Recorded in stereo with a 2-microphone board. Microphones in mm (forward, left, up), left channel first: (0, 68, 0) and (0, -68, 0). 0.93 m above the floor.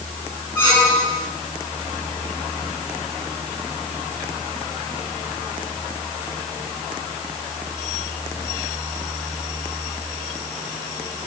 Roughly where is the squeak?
Centre.